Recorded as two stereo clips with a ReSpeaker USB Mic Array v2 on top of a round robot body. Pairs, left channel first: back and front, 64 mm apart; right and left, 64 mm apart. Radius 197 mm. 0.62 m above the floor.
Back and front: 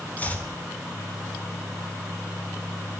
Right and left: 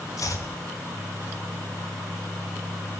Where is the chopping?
115° right, 3 m.